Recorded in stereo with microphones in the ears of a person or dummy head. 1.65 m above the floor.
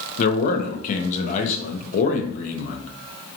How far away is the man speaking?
About 0.6 m.